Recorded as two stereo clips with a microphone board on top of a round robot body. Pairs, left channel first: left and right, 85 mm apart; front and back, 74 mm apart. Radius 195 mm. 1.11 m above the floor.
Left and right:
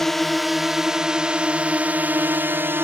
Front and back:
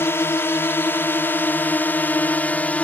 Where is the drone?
5° left; by 2.8 s 55° right.